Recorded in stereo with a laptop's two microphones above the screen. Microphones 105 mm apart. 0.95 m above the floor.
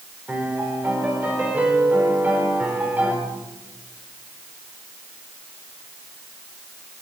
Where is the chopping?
I don't hear chopping.